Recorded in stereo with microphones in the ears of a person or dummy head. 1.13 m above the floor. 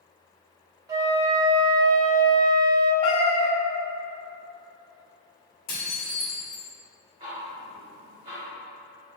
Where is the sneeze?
No sneeze in this recording.